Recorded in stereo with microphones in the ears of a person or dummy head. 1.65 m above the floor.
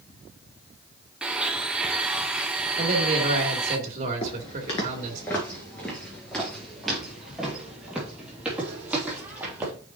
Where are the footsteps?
25° left (ahead or behind), 1.7 m; by 9.7 s 10° right (ahead or behind), 4 m.